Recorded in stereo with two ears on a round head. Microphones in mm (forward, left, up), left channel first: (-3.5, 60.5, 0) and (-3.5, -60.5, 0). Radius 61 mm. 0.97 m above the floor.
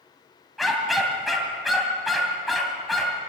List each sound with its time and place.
0.6 s a dog barking: centre (ahead or behind), 2.5 m